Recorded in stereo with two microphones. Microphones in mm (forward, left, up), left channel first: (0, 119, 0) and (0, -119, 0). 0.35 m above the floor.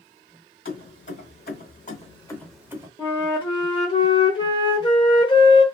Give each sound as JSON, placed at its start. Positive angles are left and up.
{"t": 0.7, "sound": "keys jangling", "side_deg": 60, "distance_m": 1.5}
{"t": 3.0, "sound": "a flute", "side_deg": 20, "distance_m": 0.8}